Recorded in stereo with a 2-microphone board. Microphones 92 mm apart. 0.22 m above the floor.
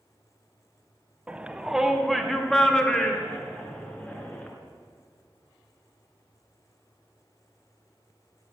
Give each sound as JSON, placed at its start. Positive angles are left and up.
{"t": 1.3, "sound": "a shout", "side_deg": -15, "distance_m": 1.1}